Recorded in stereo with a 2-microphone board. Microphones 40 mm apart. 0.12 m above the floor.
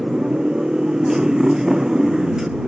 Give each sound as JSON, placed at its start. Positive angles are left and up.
{"t": 0.0, "sound": "a motorcycle", "side_deg": -15}